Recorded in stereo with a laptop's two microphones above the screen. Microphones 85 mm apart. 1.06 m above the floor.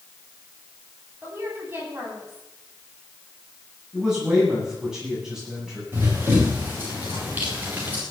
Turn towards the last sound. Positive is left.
turn(degrees=-20)  # may be behind; listen again after turning